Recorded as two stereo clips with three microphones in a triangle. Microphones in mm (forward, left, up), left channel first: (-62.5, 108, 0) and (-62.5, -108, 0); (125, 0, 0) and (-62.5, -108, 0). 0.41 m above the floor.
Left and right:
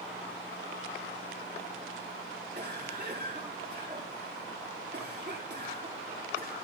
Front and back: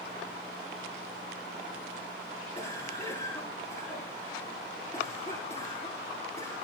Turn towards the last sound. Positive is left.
turn(degrees=-35)